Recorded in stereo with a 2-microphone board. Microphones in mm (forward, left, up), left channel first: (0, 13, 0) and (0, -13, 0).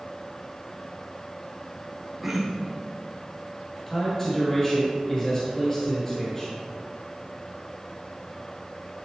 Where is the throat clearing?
5° right (ahead or behind), 1.8 m.